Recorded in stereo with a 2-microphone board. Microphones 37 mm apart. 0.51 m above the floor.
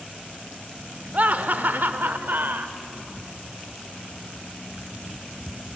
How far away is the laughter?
About 1.4 m.